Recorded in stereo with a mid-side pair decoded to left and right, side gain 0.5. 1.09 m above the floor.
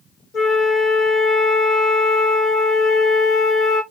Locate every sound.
0.3 s a flute: 45° left, 0.9 m